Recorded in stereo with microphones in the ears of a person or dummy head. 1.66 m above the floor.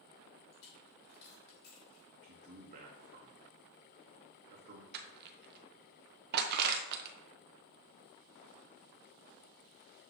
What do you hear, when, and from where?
0.5 s a dropped coin: 65° left (ahead or behind), 3 m
2.2 s a man speaking: 40° right (ahead or behind), 1.0 m
4.9 s crushing: 60° right (ahead or behind), 0.9 m